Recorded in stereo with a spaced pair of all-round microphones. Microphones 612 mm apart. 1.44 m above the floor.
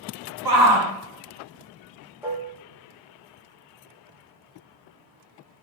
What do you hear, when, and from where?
0.5 s a shout: 40° right (ahead or behind), 0.7 m
2.2 s dishes clattering: 5° right (ahead or behind), 0.6 m